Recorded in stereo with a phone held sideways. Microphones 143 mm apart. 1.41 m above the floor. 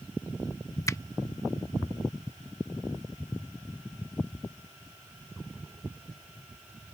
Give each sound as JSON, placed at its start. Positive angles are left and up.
{"t": 0.9, "sound": "a finger snap", "side_deg": 25}